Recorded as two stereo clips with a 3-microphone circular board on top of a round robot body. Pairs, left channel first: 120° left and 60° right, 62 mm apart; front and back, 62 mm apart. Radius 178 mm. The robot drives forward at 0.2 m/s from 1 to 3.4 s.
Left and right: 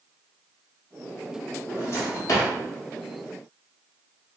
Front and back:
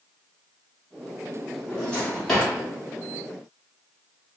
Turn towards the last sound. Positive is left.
turn(degrees=100)